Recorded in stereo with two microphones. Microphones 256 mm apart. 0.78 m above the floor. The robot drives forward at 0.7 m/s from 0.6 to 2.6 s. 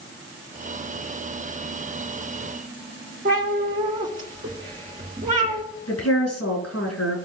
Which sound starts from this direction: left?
A woman speaking, at 5.9 s.